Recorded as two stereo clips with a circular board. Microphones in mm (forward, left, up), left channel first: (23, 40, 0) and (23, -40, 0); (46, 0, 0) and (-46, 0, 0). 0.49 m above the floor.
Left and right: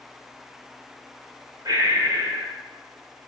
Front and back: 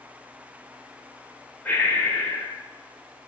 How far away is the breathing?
About 2 m.